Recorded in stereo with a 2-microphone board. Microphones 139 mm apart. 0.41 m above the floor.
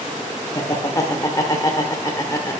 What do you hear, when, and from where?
0.6 s laughter: 25° left (ahead or behind), 0.9 m